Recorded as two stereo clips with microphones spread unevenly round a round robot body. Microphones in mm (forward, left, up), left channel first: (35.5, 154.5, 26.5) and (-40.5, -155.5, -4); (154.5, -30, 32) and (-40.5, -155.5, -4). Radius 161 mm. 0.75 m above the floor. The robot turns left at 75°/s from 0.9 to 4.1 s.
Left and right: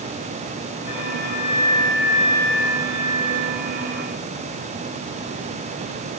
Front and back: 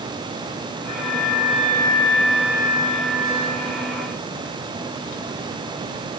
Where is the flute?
105° left, 6.5 m; by 3.8 s 115° right, 6.5 m.